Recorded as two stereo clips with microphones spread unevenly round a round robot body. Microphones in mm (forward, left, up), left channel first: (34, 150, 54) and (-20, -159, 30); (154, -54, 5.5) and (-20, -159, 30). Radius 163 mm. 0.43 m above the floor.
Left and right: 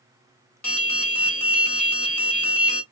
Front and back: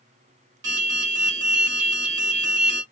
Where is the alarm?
165° left, 1.7 m.